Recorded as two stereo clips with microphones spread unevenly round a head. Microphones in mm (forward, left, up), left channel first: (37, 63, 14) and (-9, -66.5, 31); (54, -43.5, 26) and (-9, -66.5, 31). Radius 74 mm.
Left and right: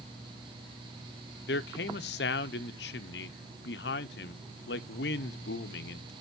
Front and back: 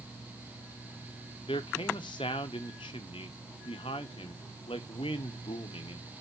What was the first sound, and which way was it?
A man speaking, 65° left.